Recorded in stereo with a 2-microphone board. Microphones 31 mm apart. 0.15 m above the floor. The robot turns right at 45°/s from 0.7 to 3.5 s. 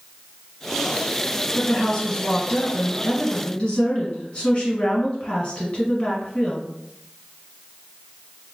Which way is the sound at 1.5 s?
20° left.